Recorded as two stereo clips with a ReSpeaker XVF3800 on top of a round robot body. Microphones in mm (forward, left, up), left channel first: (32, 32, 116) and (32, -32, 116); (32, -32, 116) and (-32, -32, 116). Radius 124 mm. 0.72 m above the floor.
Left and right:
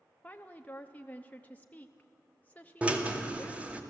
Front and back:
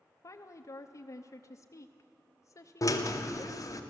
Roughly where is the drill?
Ahead.